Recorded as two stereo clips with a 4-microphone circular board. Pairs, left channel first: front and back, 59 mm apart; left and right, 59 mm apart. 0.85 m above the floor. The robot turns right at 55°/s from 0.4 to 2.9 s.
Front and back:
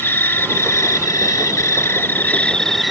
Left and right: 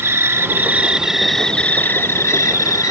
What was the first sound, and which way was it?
An insect, 45° right.